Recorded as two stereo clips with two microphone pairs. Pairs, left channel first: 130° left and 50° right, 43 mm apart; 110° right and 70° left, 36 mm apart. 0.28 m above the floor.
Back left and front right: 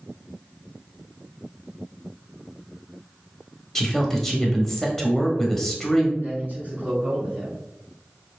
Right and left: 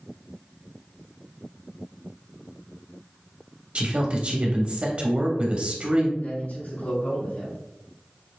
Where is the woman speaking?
55° left, 1.1 m.